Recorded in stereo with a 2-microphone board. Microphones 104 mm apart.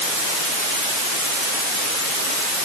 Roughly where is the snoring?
I don't hear snoring.